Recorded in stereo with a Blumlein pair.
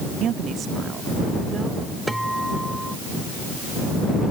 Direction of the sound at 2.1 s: Straight ahead.